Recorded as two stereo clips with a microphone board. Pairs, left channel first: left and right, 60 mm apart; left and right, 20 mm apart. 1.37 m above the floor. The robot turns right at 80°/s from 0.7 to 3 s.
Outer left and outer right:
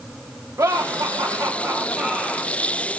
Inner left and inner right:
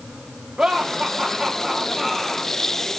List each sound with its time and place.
0.6 s laughter: 120° right, 2.5 m; by 2.5 s 25° left, 2.5 m